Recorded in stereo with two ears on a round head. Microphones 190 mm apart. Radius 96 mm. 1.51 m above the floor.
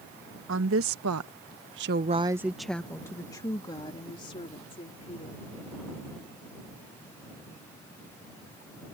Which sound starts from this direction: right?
A woman speaking, at 0.5 s.